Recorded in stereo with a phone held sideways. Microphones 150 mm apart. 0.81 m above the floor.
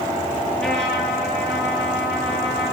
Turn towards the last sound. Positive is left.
turn(degrees=10)  # may be behind; listen again after turning